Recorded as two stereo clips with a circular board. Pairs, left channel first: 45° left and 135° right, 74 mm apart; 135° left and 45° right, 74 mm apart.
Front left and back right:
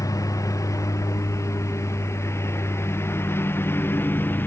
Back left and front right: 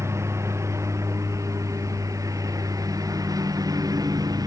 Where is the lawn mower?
5° left; by 4.5 s 15° right.